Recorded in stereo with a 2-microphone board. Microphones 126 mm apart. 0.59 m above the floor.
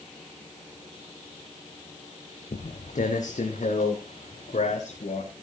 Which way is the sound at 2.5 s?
75° left (ahead or behind).